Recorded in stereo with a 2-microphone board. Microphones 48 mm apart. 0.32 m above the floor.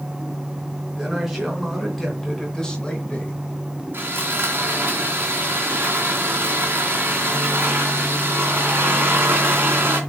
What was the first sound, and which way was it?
A man speaking, 5° right (ahead or behind).